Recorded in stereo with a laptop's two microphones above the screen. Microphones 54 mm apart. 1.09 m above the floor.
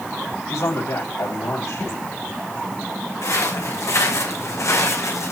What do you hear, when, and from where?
0.5 s a man speaking: 85° left, 6 m
3.2 s footsteps: 80° left, 5.5 m; by 5.3 s 75° left (ahead or behind), 4.5 m